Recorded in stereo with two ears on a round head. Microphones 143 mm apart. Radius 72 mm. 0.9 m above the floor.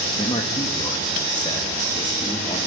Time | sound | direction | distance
0.2 | a man speaking | 30° left (ahead or behind) | 1.4 m